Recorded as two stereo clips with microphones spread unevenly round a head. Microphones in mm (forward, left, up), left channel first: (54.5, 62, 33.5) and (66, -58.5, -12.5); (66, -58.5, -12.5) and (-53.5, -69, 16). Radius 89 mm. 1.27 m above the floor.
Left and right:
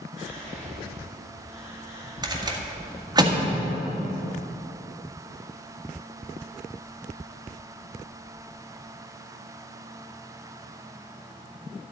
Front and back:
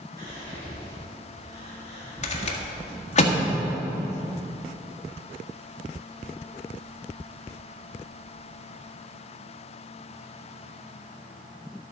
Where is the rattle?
20° right, 1.5 m.